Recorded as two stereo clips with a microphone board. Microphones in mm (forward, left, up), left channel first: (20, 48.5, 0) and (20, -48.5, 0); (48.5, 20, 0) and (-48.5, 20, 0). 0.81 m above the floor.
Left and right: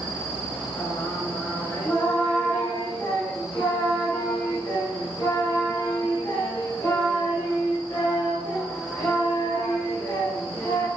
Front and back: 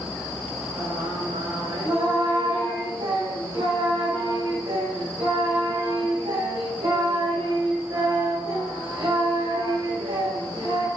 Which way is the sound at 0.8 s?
155° left.